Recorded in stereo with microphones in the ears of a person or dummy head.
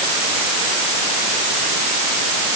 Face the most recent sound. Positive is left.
No sound to turn to.